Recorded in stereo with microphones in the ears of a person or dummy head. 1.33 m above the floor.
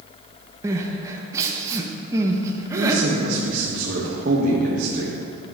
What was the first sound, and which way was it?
Crying, 15° right (ahead or behind).